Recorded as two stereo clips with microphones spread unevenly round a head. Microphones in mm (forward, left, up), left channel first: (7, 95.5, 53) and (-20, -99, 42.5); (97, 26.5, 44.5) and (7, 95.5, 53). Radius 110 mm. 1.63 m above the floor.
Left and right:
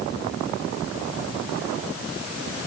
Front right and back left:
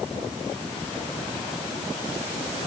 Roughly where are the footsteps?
No footsteps in this recording.